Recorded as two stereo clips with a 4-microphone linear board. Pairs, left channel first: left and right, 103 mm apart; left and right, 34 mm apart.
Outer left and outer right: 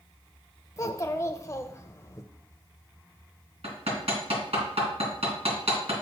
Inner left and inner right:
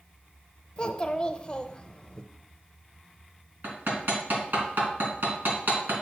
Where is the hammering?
70° right (ahead or behind), 2.5 m.